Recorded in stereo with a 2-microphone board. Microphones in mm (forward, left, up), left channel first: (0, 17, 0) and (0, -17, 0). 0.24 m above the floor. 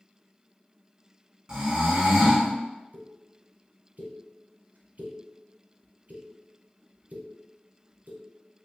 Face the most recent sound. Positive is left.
turn(degrees=-60)  # may be behind; listen again after turning